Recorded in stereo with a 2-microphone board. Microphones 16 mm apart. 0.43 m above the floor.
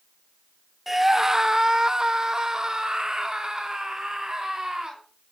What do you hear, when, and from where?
0.9 s a scream: 10° right (ahead or behind), 0.8 m; by 5.0 s 45° right (ahead or behind), 3 m